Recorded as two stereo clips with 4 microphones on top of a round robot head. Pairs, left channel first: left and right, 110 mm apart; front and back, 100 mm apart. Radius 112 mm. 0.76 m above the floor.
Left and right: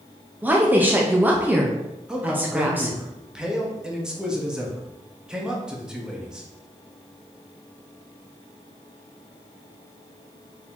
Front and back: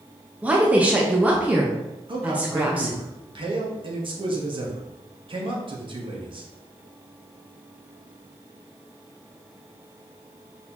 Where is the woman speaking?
135° right, 0.8 m.